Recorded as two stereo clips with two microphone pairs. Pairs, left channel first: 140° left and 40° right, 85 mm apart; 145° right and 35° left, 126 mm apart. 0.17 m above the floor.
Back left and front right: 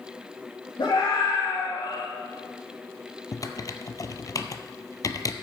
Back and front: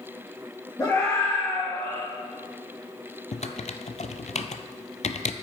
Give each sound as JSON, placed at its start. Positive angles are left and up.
{"t": 0.8, "sound": "a scream", "azimuth_deg": 150, "distance_m": 5.0}
{"t": 3.3, "sound": "typing on a keyboard", "azimuth_deg": -170, "distance_m": 0.6}